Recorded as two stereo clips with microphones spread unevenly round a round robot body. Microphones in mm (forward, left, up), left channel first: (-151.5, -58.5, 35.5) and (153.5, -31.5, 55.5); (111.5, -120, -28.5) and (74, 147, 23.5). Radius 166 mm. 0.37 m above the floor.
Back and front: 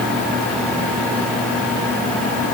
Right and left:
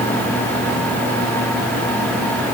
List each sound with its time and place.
Only background noise.